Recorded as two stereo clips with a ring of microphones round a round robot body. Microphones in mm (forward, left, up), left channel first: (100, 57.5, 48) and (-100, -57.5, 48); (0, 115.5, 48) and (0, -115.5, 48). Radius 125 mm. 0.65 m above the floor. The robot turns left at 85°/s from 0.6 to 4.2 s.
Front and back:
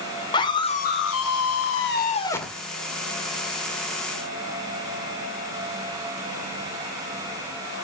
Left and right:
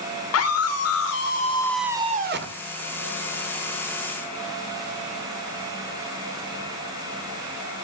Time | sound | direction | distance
0.3 | a scream | 100° left | 2.5 m